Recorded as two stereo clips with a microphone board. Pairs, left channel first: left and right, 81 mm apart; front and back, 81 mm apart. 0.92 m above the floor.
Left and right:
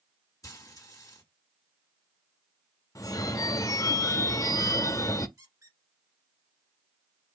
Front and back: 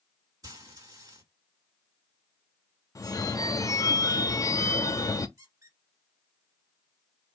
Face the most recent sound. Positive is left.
turn(degrees=-135)